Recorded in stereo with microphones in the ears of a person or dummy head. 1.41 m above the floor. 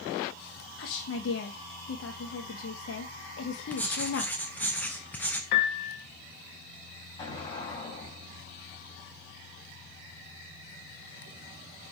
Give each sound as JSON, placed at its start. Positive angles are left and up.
{"t": 0.8, "sound": "a woman speaking", "side_deg": 75, "distance_m": 1.2}
{"t": 3.7, "sound": "writing", "side_deg": 10, "distance_m": 0.8}
{"t": 5.5, "sound": "a piano", "side_deg": 55, "distance_m": 2.0}
{"t": 7.2, "sound": "an explosion", "side_deg": 30, "distance_m": 3.5}